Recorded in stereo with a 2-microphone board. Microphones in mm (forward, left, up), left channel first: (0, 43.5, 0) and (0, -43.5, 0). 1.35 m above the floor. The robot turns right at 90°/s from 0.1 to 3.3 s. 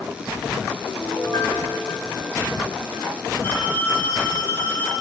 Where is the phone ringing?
30° left (ahead or behind), 2.5 m.